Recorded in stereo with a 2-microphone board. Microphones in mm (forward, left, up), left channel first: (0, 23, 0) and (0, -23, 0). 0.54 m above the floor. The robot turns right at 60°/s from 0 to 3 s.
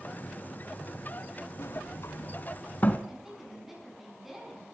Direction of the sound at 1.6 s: 60° left (ahead or behind).